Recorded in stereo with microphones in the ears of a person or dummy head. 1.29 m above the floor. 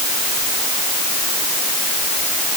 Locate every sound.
Only background noise.